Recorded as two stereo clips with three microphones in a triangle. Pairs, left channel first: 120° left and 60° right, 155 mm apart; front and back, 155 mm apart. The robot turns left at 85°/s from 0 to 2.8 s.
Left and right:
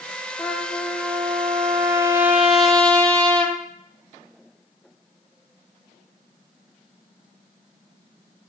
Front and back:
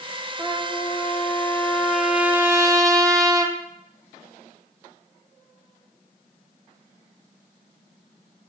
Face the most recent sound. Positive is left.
turn(degrees=-165)